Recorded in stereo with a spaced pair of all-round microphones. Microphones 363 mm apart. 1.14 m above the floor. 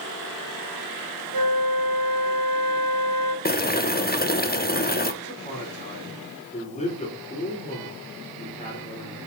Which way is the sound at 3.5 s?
25° left (ahead or behind).